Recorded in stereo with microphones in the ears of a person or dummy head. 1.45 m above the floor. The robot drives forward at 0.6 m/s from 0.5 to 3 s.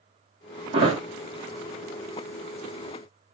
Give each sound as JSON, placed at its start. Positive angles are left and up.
{"t": 0.7, "sound": "a thud", "side_deg": -30, "distance_m": 1.2}